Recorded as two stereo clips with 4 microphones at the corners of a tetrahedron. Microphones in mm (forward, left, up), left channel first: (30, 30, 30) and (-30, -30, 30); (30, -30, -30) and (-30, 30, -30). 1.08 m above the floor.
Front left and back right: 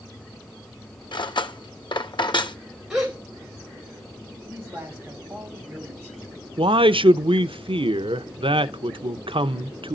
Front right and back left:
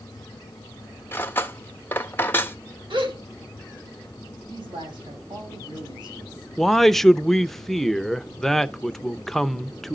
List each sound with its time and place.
1.1 s cutlery clinking: 20° left, 0.7 m
2.9 s a gasp: 140° left, 5.5 m
4.5 s a man speaking: 155° left, 7 m
6.6 s a man speaking: 130° right, 0.6 m